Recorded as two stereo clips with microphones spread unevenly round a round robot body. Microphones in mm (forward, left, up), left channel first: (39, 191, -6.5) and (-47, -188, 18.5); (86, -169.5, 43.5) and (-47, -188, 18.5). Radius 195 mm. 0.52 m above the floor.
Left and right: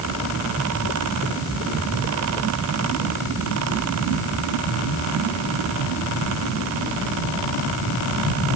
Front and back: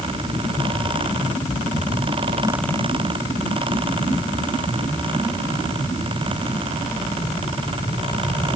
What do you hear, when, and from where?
Only background noise.